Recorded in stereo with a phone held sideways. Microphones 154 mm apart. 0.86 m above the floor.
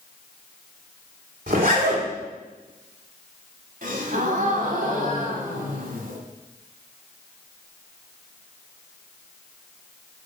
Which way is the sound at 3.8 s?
60° right (ahead or behind).